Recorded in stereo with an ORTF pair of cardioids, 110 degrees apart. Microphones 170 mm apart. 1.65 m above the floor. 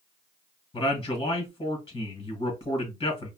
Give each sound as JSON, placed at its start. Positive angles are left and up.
{"t": 0.7, "sound": "a man speaking", "azimuth_deg": 25, "distance_m": 1.7}